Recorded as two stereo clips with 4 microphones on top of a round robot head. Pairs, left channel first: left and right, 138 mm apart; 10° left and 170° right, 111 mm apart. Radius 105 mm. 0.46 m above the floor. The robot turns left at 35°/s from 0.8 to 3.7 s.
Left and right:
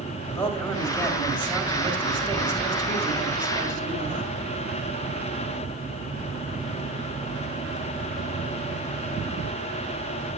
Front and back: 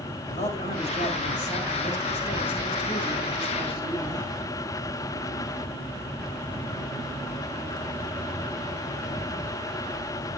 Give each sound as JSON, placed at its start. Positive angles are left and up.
{"t": 0.3, "sound": "a man speaking", "azimuth_deg": 15, "distance_m": 5.5}